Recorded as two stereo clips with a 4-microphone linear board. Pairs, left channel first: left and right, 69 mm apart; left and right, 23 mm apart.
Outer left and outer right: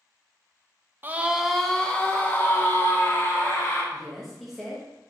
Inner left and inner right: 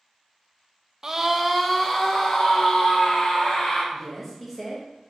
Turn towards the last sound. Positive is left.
turn(degrees=0)  # may be behind; listen again after turning